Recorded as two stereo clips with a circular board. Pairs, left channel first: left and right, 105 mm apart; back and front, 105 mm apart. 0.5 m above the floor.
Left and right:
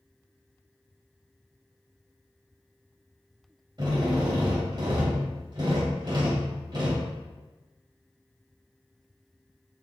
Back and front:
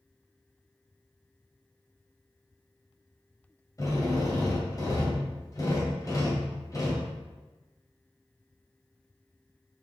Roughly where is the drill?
Behind right.